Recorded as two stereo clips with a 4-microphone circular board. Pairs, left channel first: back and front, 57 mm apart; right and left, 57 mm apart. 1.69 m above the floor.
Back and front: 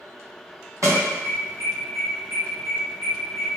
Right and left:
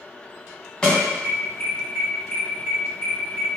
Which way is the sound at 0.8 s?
15° right.